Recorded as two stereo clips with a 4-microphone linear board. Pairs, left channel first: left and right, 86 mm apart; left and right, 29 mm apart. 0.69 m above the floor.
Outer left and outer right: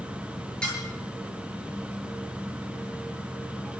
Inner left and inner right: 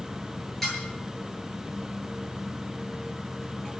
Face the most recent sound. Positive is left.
turn(degrees=10)  # may be behind; listen again after turning